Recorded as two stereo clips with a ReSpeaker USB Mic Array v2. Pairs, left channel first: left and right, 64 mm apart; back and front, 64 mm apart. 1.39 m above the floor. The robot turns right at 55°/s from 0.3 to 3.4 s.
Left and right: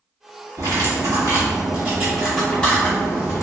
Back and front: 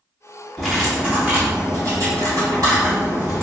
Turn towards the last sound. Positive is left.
turn(degrees=55)